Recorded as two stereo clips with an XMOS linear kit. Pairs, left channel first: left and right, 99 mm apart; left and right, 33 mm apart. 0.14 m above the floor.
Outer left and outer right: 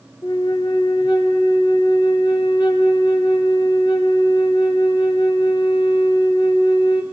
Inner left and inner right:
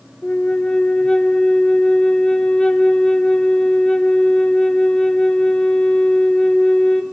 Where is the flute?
50° left (ahead or behind), 1.9 m.